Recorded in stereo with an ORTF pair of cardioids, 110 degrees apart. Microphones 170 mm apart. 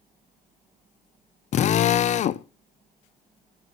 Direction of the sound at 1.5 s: 45° left.